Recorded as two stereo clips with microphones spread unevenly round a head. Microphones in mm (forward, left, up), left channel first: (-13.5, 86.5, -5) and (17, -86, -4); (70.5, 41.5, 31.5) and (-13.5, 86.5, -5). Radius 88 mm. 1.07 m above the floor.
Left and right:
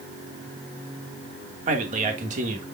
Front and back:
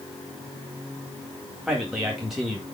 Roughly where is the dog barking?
I don't hear a dog barking.